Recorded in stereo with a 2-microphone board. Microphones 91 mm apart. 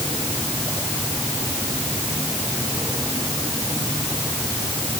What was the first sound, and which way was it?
Only background noise.